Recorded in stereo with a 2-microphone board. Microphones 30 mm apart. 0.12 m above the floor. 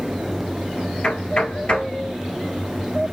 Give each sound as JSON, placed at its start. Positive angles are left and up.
{"t": 1.0, "sound": "knocking", "side_deg": 40, "distance_m": 1.7}